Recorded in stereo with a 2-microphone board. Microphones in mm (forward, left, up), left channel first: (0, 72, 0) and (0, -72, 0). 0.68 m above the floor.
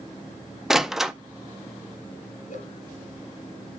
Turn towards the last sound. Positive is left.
turn(degrees=70)  # may be behind; listen again after turning